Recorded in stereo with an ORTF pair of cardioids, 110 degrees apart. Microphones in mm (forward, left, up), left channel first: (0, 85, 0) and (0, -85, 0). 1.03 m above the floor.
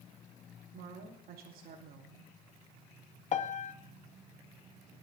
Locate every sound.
0.7 s a woman speaking: 70° right, 2.5 m
3.3 s a piano: 45° left, 0.9 m